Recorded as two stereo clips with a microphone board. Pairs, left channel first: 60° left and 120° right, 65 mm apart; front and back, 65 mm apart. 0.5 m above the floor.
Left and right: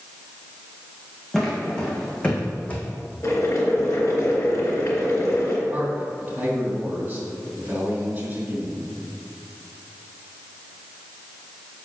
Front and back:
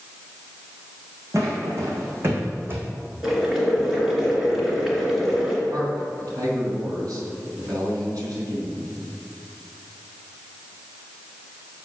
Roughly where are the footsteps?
Behind left.